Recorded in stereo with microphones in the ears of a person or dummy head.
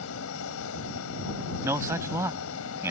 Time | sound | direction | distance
0.0 | a fan | 80° left | ?
1.6 | a man speaking | 10° right (ahead or behind) | ?